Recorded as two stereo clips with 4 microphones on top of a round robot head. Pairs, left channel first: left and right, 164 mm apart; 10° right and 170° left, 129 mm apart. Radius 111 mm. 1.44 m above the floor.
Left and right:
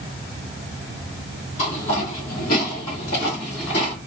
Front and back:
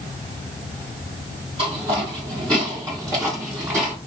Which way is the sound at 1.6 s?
125° left.